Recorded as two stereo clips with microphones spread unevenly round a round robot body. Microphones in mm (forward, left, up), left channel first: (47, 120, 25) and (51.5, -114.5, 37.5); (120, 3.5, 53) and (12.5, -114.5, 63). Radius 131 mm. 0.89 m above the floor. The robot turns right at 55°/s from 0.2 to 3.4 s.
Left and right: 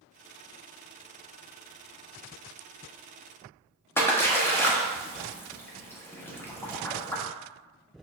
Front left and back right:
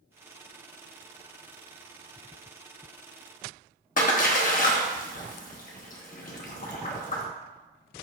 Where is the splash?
10° left, 0.8 m.